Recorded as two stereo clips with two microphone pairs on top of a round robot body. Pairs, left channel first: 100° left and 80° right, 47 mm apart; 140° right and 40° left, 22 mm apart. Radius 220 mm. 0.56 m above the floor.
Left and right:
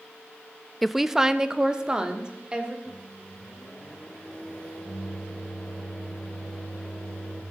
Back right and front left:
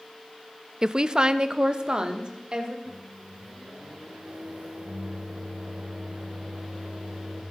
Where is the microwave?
35° left, 2.5 m.